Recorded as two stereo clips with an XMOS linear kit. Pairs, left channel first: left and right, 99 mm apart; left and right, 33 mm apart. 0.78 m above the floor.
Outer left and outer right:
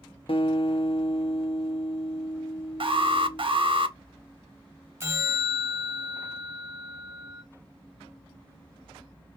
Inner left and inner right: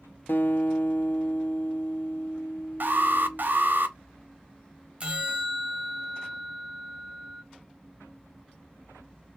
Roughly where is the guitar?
Left.